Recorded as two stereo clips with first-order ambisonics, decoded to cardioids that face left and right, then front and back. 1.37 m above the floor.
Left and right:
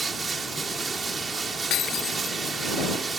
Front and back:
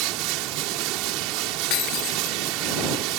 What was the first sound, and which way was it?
Running water, 165° right.